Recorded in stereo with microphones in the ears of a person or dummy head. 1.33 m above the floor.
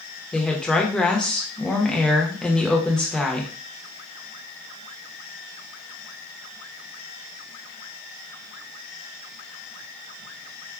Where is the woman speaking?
5° left (ahead or behind), 0.7 m.